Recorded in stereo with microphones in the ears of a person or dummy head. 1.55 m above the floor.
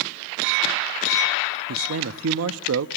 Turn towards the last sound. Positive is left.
turn(degrees=-70)  # may be behind; listen again after turning